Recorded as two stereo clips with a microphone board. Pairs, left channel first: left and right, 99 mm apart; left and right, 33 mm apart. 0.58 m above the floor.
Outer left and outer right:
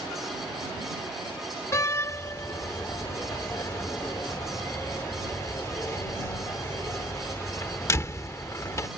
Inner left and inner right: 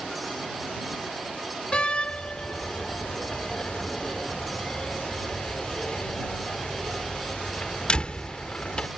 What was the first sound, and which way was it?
A door slam, 30° left (ahead or behind).